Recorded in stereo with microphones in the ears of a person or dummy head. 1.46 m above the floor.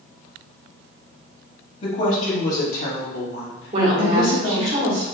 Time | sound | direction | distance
1.8 | a woman speaking | 45° left (ahead or behind) | 1.7 m
3.7 | a woman speaking | 35° right (ahead or behind) | 1.3 m